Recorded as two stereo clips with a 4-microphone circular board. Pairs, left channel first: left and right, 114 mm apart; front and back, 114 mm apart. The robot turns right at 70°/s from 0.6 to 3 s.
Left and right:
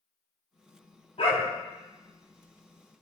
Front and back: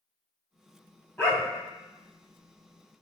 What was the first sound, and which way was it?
A dog barking, 70° left.